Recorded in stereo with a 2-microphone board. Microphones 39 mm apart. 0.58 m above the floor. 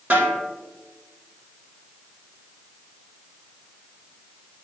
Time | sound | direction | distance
0.1 | a snare drum | 50° right (ahead or behind) | 2.5 m